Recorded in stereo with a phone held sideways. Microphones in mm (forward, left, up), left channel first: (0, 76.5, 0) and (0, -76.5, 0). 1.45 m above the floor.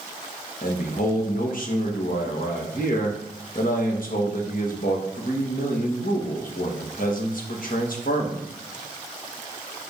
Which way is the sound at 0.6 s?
65° left (ahead or behind).